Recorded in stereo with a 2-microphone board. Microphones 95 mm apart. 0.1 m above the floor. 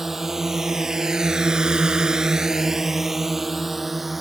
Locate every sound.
0.0 s a drone: 5° right (ahead or behind); by 4.2 s centre (ahead or behind)